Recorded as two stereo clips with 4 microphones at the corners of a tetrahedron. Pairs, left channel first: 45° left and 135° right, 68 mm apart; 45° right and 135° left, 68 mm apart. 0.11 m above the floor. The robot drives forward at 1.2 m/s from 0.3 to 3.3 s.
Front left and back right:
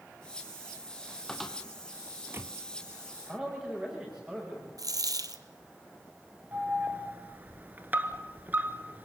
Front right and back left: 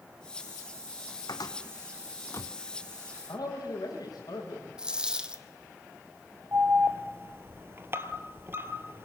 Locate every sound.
1.3 s a cupboard door: 35° right, 1.8 m; by 2.5 s 95° right, 1.1 m
3.3 s a man speaking: 65° right, 9.5 m
4.8 s a dropped coin: 145° right, 1.3 m
6.5 s an alarm: 170° left, 1.5 m